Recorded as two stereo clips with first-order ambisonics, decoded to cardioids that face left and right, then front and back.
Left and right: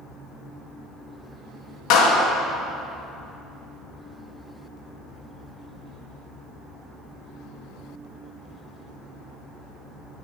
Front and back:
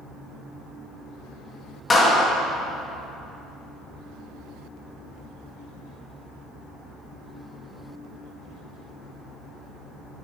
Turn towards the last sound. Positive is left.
turn(degrees=70)